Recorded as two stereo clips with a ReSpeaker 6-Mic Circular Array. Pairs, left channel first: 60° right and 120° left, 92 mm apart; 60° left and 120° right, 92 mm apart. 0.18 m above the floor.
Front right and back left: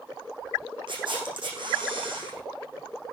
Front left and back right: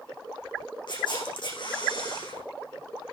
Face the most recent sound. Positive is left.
turn(degrees=90)